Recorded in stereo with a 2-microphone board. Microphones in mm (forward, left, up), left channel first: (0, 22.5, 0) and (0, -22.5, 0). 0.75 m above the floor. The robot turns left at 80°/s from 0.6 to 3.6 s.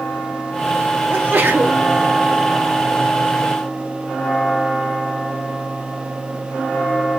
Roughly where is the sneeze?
Ahead right.